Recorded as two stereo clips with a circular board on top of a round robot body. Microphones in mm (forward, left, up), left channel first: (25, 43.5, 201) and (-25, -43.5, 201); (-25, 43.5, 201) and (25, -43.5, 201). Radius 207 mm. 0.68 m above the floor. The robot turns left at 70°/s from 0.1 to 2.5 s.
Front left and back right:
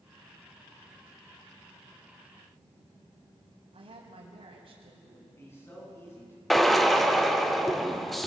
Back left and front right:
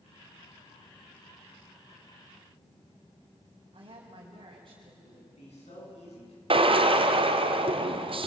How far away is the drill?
About 1.7 m.